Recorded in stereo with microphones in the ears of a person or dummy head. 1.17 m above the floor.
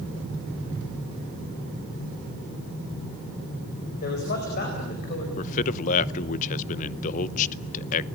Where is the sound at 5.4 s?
45° left (ahead or behind), 0.8 m.